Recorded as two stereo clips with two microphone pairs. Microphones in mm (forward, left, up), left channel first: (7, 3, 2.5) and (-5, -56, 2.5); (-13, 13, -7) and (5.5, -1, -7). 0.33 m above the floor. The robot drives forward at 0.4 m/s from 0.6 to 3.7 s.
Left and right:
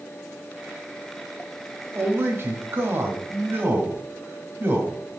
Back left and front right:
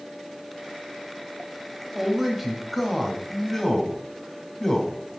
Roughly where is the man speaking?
Right.